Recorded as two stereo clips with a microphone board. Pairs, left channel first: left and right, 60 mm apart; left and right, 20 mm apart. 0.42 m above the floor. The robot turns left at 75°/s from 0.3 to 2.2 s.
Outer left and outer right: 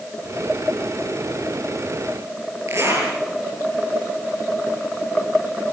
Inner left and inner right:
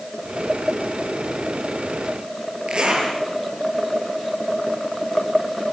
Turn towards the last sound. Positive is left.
turn(degrees=-50)  # may be behind; listen again after turning